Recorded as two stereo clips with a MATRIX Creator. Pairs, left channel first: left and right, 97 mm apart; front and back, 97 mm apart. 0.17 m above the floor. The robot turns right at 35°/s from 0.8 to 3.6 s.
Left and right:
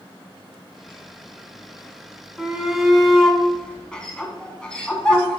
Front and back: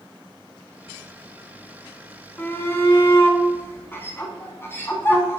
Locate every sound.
2.4 s a shout: 20° right, 1.3 m; by 5.4 s 20° left, 1.3 m